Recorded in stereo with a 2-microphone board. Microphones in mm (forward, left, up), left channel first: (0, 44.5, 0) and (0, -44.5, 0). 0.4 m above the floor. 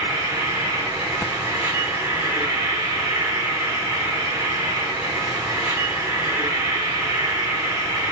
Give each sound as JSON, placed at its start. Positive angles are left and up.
{"t": 0.0, "sound": "an insect", "side_deg": -30, "distance_m": 4.0}